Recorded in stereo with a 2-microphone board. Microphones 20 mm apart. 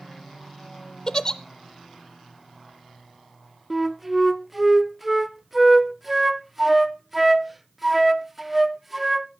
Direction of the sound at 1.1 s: 35° left (ahead or behind).